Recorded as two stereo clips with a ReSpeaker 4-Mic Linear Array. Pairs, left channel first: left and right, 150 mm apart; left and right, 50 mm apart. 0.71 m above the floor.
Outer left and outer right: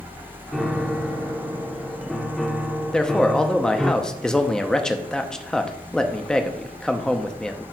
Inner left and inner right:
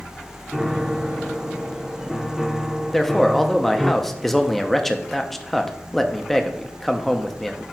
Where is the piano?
Centre (ahead or behind), 0.7 m.